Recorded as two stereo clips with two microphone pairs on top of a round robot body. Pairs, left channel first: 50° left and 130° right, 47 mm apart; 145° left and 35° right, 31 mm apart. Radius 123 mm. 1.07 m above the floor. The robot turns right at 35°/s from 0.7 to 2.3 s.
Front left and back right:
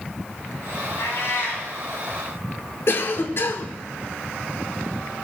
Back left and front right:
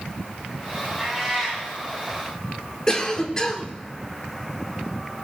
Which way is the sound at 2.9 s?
75° left.